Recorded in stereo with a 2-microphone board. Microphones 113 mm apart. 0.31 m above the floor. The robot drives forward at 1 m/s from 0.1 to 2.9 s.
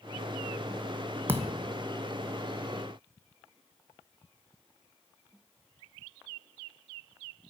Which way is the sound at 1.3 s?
20° right (ahead or behind).